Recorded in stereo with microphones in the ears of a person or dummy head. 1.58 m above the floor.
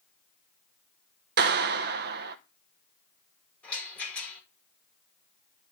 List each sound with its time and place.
1.4 s a clap: 60° right (ahead or behind), 1.1 m
3.6 s a rattle: 5° left (ahead or behind), 9 m